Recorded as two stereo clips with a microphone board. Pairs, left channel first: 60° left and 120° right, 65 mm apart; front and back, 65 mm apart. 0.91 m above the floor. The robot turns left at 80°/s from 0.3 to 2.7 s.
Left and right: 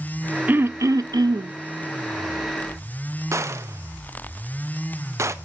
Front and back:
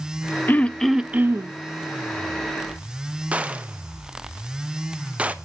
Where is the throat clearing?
60° right, 0.5 m; by 1.5 s 145° right, 0.5 m.